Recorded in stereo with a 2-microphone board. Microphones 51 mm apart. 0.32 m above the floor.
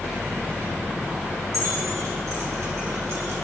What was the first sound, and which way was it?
Keys jangling, 80° right.